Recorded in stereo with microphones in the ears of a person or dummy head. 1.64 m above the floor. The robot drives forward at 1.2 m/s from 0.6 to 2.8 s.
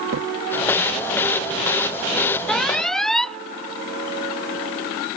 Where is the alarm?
5° left (ahead or behind).